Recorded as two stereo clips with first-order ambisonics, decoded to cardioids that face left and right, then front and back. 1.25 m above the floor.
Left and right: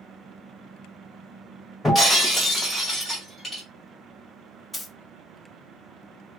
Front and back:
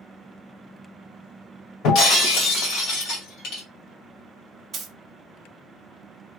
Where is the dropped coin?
Straight behind, 0.5 m.